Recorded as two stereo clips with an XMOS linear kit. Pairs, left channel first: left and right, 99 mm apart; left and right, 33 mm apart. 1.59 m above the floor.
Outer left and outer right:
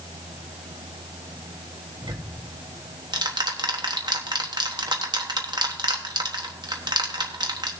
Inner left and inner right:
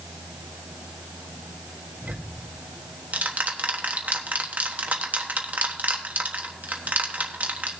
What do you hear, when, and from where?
2.0 s ticking: 45° right (ahead or behind), 1.2 m